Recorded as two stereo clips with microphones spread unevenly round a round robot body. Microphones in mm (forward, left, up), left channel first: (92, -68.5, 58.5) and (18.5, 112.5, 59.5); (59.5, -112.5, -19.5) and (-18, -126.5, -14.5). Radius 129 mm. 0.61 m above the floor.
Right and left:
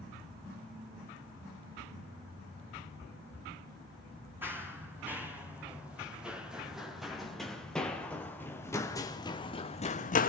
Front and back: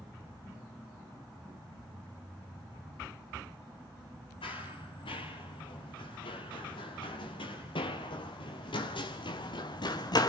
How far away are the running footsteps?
About 7 m.